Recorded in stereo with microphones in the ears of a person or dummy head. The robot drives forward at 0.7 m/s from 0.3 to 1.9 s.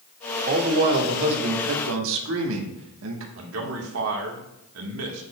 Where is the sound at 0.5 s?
50° right (ahead or behind), 2.0 m; by 3.3 s 75° right (ahead or behind), 1.6 m.